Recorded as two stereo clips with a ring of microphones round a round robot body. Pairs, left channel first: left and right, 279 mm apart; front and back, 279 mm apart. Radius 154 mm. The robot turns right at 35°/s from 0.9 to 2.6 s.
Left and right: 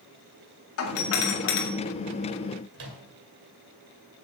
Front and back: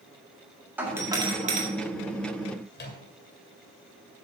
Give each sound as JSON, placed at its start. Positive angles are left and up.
{"t": 0.8, "sound": "a doorbell", "azimuth_deg": 100, "distance_m": 1.9}
{"t": 2.7, "sound": "a microwave", "azimuth_deg": -55, "distance_m": 2.0}